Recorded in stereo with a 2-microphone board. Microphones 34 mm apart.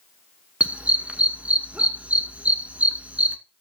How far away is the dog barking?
About 1.1 m.